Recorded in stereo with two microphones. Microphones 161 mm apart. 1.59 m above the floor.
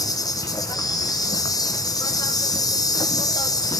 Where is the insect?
25° left (ahead or behind), 1.0 m.